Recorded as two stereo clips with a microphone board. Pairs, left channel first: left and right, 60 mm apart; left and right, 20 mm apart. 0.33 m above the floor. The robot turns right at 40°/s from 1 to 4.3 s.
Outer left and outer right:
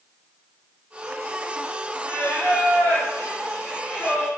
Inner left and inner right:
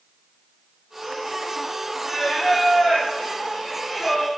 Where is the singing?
90° right, 1.1 m; by 4.3 s straight ahead, 1.1 m.